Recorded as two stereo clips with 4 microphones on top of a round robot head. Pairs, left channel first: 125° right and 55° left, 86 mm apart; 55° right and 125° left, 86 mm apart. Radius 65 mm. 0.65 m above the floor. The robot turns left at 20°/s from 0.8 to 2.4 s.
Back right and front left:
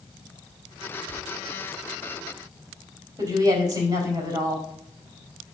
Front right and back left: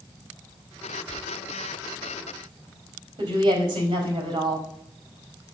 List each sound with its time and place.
1.0 s tearing paper: 130° left, 2 m; by 1.2 s 125° left, 2 m
3.2 s a woman speaking: 95° left, 4 m